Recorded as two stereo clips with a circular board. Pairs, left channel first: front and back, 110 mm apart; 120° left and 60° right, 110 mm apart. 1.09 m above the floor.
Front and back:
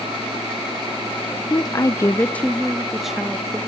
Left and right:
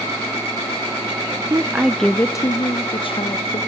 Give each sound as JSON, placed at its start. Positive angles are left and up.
{"t": 1.5, "sound": "a woman speaking", "azimuth_deg": -25, "distance_m": 0.8}